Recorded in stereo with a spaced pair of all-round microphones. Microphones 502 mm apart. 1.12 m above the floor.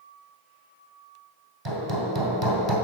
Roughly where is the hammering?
Right.